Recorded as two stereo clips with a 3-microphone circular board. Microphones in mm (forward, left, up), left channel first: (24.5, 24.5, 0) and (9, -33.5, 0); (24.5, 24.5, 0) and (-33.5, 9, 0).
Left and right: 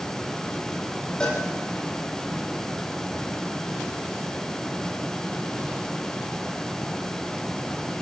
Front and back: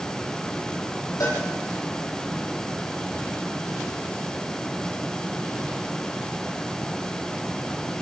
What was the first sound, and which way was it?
A cowbell, straight ahead.